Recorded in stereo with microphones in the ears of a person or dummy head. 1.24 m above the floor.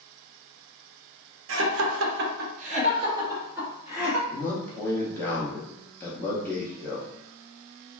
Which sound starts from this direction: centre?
A man speaking, at 4.3 s.